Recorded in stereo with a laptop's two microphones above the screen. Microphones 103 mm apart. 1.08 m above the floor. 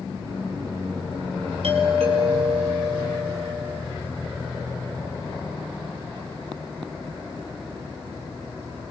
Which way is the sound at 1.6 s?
70° right (ahead or behind).